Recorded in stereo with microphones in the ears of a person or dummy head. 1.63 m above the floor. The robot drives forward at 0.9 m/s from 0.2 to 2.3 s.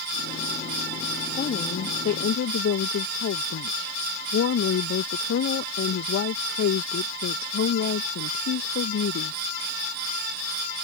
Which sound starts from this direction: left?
A woman speaking, at 1.4 s.